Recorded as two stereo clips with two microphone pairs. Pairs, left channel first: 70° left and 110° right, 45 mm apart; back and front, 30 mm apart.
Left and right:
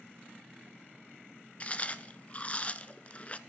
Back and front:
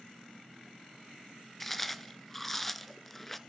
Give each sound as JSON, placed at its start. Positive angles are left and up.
{"t": 1.6, "sound": "chewing", "azimuth_deg": 100, "distance_m": 0.5}